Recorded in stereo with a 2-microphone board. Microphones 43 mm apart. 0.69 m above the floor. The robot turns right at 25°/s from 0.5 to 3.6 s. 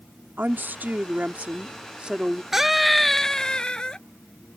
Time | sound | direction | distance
0.4 | a woman speaking | 65° right | ?
2.5 | a scream | 10° right (ahead or behind) | ?